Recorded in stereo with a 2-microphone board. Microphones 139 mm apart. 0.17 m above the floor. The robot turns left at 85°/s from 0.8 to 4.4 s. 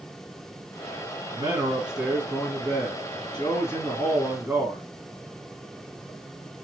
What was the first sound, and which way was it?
A man speaking, 120° right.